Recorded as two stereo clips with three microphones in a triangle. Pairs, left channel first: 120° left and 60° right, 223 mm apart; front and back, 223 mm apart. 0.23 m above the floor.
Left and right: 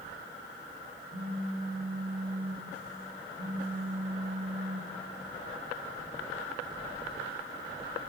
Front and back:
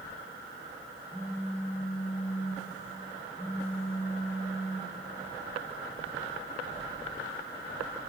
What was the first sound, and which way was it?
A phone buzzing, 105° right.